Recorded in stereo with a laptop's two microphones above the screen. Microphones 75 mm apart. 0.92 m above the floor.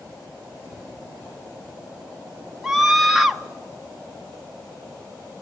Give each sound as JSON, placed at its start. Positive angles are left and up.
{"t": 2.6, "sound": "a scream", "side_deg": -5, "distance_m": 0.6}